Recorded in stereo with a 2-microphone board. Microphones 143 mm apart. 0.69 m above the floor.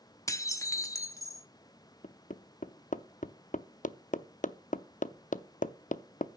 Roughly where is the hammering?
Left.